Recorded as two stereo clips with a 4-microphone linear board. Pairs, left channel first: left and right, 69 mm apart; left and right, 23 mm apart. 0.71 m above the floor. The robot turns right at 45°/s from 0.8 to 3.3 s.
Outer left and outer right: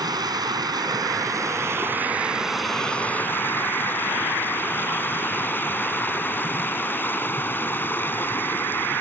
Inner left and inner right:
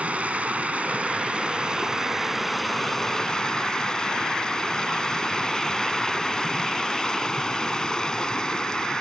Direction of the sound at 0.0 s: 80° right.